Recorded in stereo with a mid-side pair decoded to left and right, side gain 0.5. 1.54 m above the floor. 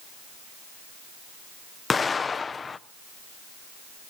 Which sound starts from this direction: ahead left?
An explosion, at 1.9 s.